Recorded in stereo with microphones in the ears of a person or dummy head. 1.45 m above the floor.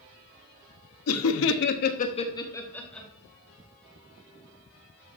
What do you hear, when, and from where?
1.1 s laughter: 80° left, 0.8 m; by 3.1 s centre (ahead or behind), 1.1 m